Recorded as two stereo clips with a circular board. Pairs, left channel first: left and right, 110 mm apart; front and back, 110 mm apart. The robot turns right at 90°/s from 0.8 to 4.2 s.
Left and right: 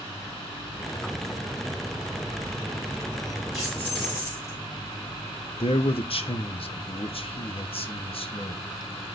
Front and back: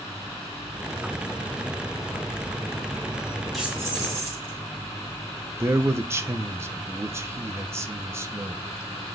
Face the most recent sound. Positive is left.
turn(degrees=115)